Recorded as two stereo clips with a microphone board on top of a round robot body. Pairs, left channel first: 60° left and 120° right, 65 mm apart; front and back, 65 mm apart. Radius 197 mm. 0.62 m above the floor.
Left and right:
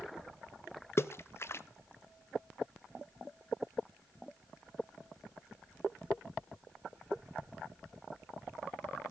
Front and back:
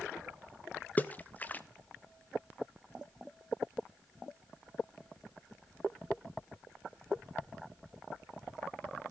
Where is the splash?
50° left, 0.6 m.